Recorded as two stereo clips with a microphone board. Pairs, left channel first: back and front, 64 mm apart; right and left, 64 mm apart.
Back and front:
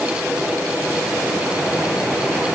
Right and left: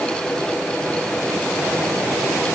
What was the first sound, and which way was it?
Only background noise.